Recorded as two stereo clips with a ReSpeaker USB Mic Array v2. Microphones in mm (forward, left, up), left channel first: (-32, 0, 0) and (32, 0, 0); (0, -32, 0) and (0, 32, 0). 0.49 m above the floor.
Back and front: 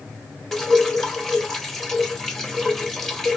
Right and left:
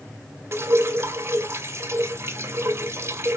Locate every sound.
0.5 s dripping: 100° left, 1.2 m